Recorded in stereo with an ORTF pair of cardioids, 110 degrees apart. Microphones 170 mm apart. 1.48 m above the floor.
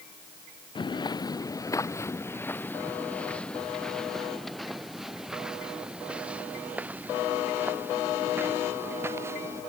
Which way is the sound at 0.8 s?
30° left.